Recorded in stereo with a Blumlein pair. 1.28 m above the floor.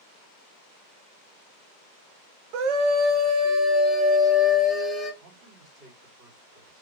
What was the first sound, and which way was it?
A scream, 45° right.